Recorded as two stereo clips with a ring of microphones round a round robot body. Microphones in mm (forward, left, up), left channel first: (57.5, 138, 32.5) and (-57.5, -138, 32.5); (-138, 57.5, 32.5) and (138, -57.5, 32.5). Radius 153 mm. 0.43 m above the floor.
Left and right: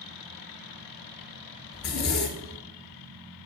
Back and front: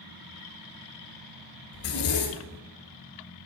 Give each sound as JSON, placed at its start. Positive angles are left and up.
{"t": 1.7, "sound": "a zipper", "azimuth_deg": 115, "distance_m": 1.9}